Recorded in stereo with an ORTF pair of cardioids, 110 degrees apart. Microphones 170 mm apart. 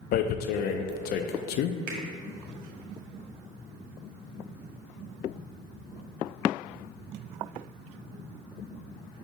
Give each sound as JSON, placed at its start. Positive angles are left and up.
{"t": 0.1, "sound": "tearing paper", "azimuth_deg": 70, "distance_m": 0.5}
{"t": 1.9, "sound": "a finger snap", "azimuth_deg": -60, "distance_m": 1.6}